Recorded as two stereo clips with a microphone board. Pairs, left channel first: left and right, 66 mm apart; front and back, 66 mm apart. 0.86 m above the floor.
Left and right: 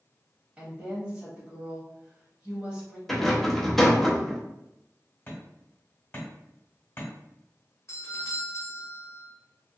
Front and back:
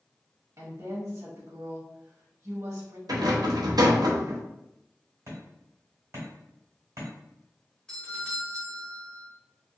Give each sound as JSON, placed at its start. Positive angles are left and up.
{"t": 0.6, "sound": "a woman speaking", "azimuth_deg": -160, "distance_m": 1.3}
{"t": 3.1, "sound": "a rattle", "azimuth_deg": 175, "distance_m": 0.6}
{"t": 5.3, "sound": "hammering", "azimuth_deg": 145, "distance_m": 1.2}
{"t": 7.9, "sound": "a doorbell", "azimuth_deg": 75, "distance_m": 1.1}